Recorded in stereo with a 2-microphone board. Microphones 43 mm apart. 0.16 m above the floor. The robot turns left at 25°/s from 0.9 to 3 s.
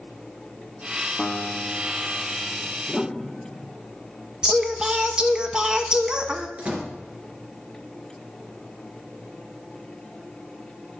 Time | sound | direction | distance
1.2 | a guitar | 15° left (ahead or behind) | 0.9 m
2.9 | a piano | 5° left (ahead or behind) | 0.8 m
4.4 | singing | 20° right (ahead or behind) | 0.8 m
6.6 | a door slam | 35° right (ahead or behind) | 2 m